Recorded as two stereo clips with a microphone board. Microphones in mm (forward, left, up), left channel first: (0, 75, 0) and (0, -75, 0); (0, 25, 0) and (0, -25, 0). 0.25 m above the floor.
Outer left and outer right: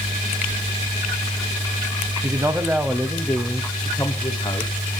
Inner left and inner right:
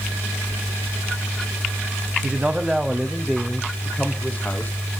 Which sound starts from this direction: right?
A man speaking, at 2.2 s.